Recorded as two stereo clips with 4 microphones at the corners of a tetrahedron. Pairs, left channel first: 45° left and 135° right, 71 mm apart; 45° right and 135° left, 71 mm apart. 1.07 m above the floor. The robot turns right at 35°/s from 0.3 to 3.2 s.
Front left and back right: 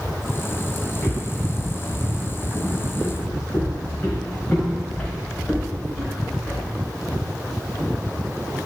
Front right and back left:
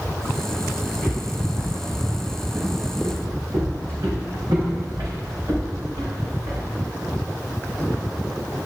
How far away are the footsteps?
About 3.5 m.